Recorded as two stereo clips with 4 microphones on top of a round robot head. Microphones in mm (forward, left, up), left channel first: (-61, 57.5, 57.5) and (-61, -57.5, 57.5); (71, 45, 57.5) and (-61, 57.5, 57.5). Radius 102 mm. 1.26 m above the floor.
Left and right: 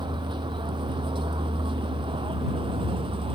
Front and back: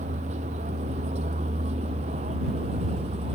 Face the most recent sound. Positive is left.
turn(degrees=-130)